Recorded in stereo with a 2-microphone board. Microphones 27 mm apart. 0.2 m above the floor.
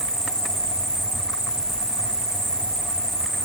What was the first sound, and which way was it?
An insect, 10° left (ahead or behind).